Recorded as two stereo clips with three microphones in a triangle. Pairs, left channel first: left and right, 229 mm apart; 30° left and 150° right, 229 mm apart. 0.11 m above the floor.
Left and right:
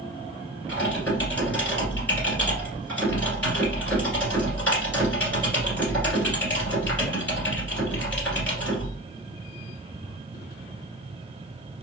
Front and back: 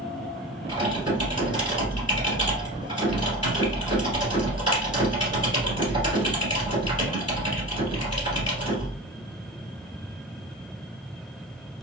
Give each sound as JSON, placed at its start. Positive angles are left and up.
{"t": 0.7, "sound": "typing on a keyboard", "azimuth_deg": 165, "distance_m": 1.8}